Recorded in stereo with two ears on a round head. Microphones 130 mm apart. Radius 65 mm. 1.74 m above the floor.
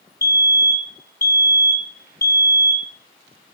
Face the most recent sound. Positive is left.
turn(degrees=20)  # may be behind; listen again after turning